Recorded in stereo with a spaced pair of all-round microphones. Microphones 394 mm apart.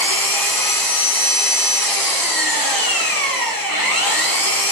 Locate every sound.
0.0 s an engine running: 60° left (ahead or behind), 2.5 m